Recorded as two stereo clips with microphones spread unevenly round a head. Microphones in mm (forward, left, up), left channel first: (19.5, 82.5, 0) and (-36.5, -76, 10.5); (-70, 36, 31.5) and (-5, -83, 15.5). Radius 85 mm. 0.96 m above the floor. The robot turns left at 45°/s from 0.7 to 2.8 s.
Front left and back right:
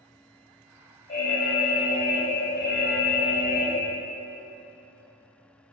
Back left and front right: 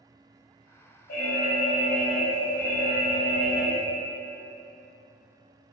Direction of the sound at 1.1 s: 120° left.